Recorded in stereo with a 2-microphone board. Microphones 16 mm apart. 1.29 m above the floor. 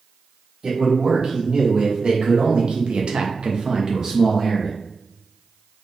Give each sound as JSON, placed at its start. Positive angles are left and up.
{"t": 0.6, "sound": "a man speaking", "side_deg": -50, "distance_m": 2.0}